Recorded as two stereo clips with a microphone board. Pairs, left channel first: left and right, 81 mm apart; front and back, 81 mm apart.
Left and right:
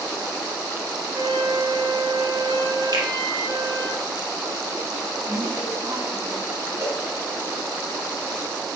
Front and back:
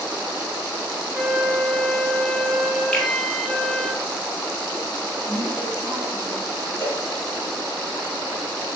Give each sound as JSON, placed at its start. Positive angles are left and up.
{"t": 1.1, "sound": "a flute", "azimuth_deg": -85, "distance_m": 0.9}
{"t": 2.9, "sound": "a finger snap", "azimuth_deg": -80, "distance_m": 2.5}
{"t": 5.2, "sound": "a woman speaking", "azimuth_deg": -110, "distance_m": 4.5}
{"t": 6.8, "sound": "a cowbell", "azimuth_deg": -55, "distance_m": 2.0}